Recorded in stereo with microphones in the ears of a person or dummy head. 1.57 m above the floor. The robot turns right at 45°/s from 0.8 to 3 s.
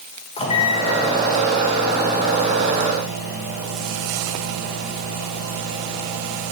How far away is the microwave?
About 1.5 m.